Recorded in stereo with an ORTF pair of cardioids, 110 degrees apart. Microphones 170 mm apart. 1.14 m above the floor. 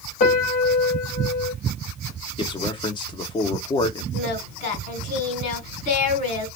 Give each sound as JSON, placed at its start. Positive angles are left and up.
{"t": 0.2, "sound": "a piano", "azimuth_deg": 60, "distance_m": 1.7}
{"t": 2.4, "sound": "a man speaking", "azimuth_deg": 30, "distance_m": 1.2}
{"t": 4.1, "sound": "singing", "azimuth_deg": 55, "distance_m": 3.0}